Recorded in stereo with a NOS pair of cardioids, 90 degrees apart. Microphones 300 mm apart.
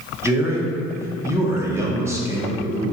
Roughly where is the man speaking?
Ahead.